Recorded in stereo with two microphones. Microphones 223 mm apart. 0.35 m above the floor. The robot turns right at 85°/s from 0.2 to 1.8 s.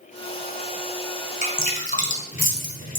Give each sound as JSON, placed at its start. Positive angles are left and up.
{"t": 1.4, "sound": "dripping", "side_deg": 35, "distance_m": 1.6}